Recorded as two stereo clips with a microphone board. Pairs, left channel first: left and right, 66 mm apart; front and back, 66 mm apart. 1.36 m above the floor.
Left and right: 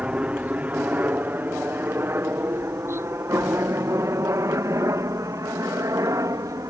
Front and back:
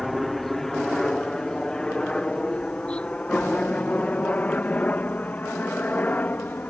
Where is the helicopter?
85° right; by 6.7 s 65° right.